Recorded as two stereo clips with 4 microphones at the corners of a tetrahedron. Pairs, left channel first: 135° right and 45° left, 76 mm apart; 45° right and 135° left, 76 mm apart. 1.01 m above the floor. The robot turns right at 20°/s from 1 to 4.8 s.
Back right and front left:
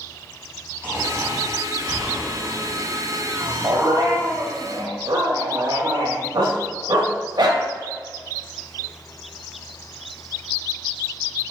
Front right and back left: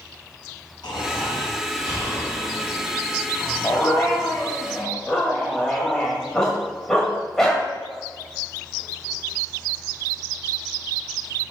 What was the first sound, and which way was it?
Snoring, 15° right.